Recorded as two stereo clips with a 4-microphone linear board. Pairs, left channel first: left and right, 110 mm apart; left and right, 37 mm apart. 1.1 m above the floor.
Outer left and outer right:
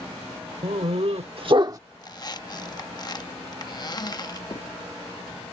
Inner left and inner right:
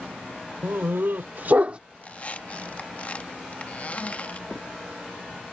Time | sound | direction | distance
0.6 | a dog barking | 70° right (ahead or behind) | ?
2.0 | a squeak | 40° left (ahead or behind) | ?
4.5 | a crack | 60° left (ahead or behind) | ?